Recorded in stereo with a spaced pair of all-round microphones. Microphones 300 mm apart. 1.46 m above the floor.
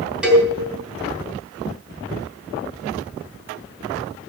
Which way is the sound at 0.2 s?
5° right (ahead or behind).